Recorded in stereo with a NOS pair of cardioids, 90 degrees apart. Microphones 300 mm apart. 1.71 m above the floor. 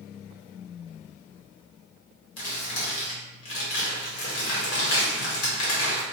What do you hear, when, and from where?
2.4 s crumpling: 55° left, 1.4 m